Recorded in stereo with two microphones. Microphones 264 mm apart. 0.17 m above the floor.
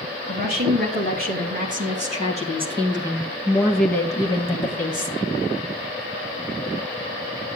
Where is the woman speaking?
40° right (ahead or behind), 3.5 m; by 5.1 s 35° left (ahead or behind), 1.5 m.